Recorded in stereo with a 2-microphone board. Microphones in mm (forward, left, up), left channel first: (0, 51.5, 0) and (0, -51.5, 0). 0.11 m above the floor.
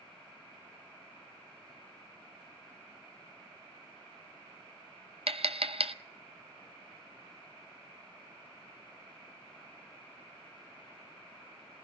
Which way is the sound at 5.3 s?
75° right (ahead or behind).